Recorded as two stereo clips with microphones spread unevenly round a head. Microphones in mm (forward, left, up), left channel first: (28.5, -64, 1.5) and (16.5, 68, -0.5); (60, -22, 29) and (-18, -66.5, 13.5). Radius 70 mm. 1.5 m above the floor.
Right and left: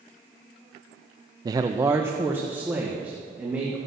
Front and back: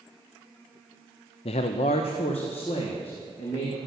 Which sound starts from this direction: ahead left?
A man speaking, at 1.4 s.